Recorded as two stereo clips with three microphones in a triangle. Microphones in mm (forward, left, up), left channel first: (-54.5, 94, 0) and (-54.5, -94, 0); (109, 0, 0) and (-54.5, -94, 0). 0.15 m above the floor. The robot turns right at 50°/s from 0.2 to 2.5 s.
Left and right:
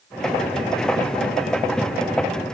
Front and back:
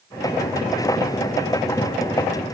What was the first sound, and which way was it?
Only background noise.